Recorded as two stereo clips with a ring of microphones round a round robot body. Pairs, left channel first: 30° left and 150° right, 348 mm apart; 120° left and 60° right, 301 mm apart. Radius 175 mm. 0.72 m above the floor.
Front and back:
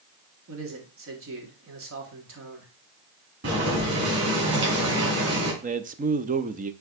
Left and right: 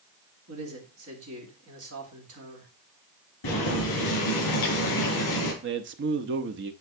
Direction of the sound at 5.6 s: 90° right.